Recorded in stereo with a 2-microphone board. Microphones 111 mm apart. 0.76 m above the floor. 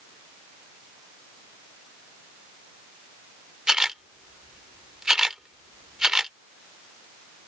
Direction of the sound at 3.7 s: 5° right (ahead or behind).